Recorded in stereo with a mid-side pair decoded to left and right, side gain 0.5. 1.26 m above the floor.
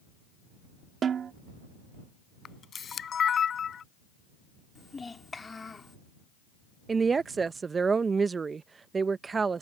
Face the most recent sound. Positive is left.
turn(degrees=-35)